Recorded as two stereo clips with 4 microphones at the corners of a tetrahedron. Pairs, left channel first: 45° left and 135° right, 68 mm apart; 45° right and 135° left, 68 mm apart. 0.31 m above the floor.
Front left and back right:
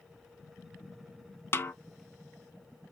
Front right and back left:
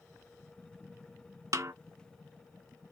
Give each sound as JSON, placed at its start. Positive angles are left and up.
{"t": 1.5, "sound": "a snare drum", "azimuth_deg": 100, "distance_m": 0.5}